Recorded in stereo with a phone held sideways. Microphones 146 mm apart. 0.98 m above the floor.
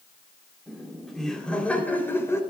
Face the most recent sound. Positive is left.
turn(degrees=20)  # may be behind; listen again after turning